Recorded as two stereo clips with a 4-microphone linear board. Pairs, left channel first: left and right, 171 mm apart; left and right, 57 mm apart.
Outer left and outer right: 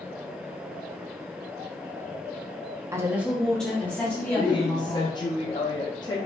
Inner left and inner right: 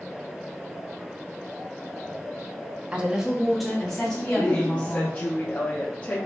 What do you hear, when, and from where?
2.9 s a woman speaking: 20° right (ahead or behind), 0.5 m; by 5.2 s 20° left (ahead or behind), 1.5 m
4.4 s a woman speaking: 25° left (ahead or behind), 0.5 m